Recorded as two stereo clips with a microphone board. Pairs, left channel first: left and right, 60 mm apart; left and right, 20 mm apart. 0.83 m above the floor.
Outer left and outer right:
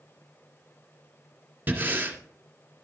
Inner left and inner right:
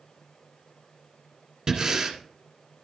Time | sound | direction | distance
1.7 | breathing | 30° right (ahead or behind) | 1.8 m